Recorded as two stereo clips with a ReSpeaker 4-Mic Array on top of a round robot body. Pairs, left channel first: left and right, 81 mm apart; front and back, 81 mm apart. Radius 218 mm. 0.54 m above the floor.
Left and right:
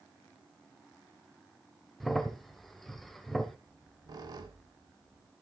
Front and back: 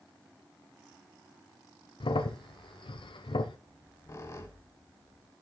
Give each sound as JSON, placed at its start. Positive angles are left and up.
{"t": 2.0, "sound": "a crack", "azimuth_deg": 0, "distance_m": 0.9}
{"t": 3.7, "sound": "a squeak", "azimuth_deg": -55, "distance_m": 0.9}